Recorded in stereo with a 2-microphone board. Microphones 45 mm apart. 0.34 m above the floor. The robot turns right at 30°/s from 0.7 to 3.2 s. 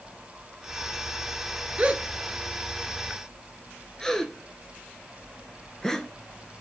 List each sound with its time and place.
1.8 s a gasp: 30° right (ahead or behind), 0.7 m; by 6.1 s 10° left (ahead or behind), 0.7 m